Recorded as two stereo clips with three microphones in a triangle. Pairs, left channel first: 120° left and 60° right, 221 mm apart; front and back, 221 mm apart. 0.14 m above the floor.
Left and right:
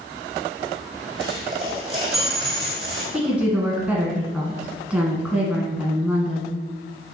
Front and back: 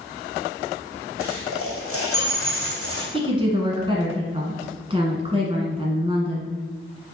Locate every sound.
1.2 s a dropped coin: 10° left, 1.9 m
3.1 s a woman speaking: 140° right, 1.2 m